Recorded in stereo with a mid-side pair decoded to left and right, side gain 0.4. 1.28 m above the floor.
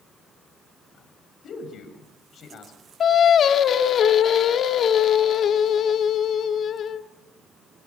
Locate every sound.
1.4 s a man speaking: 65° left, 7 m
3.0 s singing: 65° left, 1.8 m